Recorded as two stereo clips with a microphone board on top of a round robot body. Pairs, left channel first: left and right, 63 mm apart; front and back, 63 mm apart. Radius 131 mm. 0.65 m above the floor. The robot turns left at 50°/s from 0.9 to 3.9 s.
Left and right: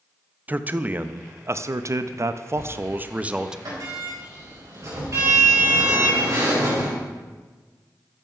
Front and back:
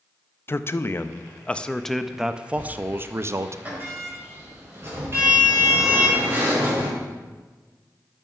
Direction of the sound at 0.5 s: 35° right.